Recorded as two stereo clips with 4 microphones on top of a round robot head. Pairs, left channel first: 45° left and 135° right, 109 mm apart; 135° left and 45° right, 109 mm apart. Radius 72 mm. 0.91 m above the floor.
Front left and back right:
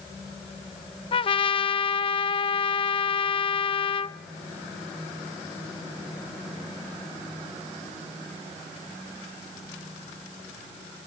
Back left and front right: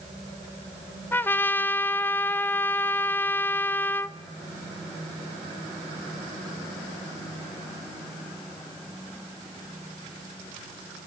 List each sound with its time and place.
1.1 s a trumpet: 65° left, 0.8 m